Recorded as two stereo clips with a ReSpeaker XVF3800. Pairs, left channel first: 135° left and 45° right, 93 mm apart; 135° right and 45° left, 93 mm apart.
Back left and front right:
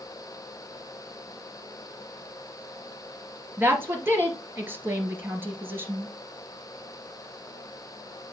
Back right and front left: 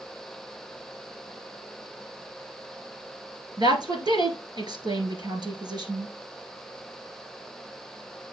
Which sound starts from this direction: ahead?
A woman speaking, at 3.6 s.